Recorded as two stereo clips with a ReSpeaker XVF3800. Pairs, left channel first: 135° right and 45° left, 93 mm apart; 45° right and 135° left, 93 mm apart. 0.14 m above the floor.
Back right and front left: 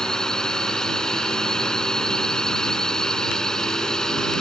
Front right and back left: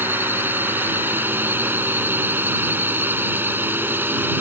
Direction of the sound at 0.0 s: 150° left.